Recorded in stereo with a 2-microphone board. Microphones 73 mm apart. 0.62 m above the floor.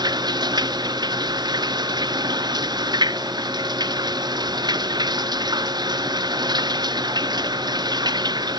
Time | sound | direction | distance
0.0 | running water | 90° right | ?